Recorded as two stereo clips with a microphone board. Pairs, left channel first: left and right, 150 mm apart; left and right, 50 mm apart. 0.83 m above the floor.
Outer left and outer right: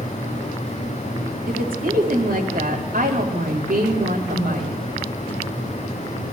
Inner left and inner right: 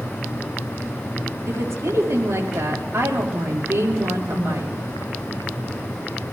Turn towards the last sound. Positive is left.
turn(degrees=-80)